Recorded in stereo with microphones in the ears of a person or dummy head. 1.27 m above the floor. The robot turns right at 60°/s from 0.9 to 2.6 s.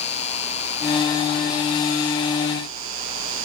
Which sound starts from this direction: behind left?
An insect, at 0.0 s.